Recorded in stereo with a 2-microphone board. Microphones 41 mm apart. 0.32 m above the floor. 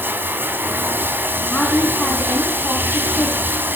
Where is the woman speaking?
30° left (ahead or behind), 3.5 m.